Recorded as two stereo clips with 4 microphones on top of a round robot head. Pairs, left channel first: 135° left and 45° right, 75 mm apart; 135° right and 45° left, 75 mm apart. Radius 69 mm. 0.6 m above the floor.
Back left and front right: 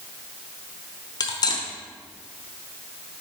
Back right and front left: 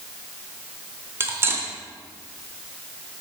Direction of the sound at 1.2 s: 100° left.